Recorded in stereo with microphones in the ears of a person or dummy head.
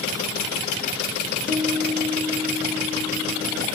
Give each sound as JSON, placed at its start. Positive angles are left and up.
{"t": 1.5, "sound": "a guitar", "side_deg": -5, "distance_m": 1.0}